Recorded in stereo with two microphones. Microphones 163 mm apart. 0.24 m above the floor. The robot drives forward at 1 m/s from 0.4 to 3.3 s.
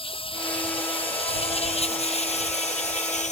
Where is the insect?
35° left (ahead or behind); by 3.3 s 50° left (ahead or behind).